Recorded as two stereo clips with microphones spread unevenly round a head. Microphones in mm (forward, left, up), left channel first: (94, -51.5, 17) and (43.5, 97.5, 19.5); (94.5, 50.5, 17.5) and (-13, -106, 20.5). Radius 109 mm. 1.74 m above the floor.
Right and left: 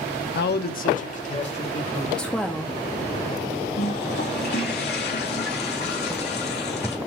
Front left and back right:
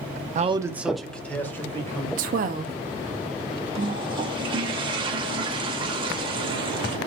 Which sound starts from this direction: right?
A man speaking, at 0.3 s.